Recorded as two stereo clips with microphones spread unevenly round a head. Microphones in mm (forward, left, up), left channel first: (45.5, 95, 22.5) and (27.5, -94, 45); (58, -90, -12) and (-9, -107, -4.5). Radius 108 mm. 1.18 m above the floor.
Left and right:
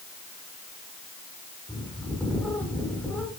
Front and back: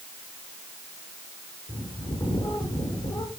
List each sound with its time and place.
1.7 s a bird: 5° left, 5.5 m